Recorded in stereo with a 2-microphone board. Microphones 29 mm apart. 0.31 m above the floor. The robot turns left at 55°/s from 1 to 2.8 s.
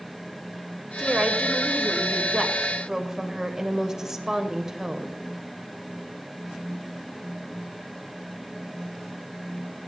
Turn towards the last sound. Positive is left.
turn(degrees=-15)  # may be behind; listen again after turning